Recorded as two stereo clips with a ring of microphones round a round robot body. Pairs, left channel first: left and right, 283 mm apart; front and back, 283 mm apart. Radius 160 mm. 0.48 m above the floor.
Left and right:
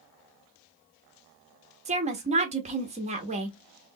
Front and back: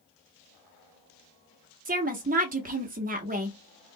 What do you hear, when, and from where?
1.9 s a woman speaking: 140° right, 0.8 m